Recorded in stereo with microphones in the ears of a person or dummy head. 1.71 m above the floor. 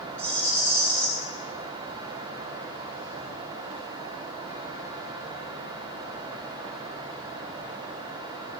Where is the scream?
No scream in this recording.